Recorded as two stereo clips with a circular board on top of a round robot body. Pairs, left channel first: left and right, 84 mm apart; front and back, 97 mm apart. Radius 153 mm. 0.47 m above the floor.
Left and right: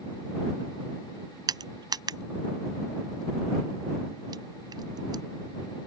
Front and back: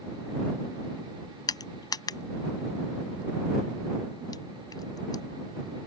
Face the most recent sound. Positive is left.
turn(degrees=-50)